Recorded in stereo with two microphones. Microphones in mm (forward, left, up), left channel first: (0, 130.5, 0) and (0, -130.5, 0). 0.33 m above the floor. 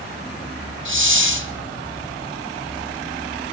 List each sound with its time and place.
0.8 s a hiss: 50° right (ahead or behind), 1.8 m